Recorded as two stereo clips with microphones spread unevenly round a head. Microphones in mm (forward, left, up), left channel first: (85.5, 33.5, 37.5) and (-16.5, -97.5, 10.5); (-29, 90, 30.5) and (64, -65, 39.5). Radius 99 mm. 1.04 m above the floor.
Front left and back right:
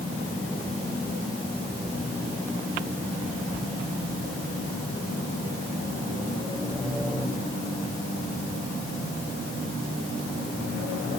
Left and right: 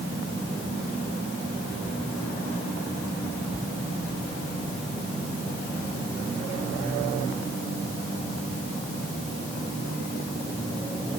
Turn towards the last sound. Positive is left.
No sound to turn to.